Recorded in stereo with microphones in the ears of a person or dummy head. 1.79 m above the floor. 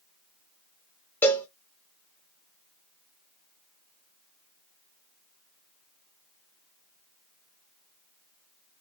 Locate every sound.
1.2 s a cowbell: 10° left (ahead or behind), 0.5 m